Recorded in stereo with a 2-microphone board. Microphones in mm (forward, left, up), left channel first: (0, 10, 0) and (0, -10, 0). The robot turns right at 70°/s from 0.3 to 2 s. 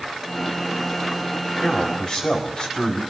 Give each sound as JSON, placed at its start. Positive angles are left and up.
{"t": 1.6, "sound": "a man speaking", "side_deg": 75, "distance_m": 4.5}